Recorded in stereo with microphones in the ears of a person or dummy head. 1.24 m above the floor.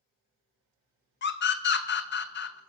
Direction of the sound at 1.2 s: 55° left (ahead or behind).